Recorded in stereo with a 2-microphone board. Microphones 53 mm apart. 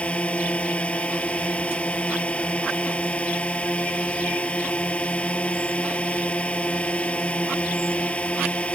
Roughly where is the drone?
Left.